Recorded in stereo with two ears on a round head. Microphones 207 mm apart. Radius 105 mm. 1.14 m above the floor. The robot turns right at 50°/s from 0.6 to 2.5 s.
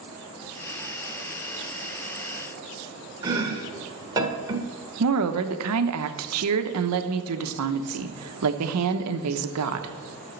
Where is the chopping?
15° right (ahead or behind), 1.5 m.